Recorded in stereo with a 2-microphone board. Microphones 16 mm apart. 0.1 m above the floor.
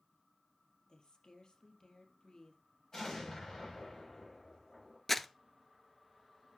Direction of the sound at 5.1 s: 15° left (ahead or behind).